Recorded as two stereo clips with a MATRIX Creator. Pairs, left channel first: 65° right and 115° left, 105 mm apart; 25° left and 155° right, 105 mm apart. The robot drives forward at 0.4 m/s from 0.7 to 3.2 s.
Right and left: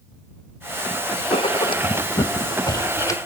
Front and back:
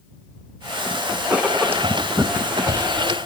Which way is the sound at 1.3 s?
80° right.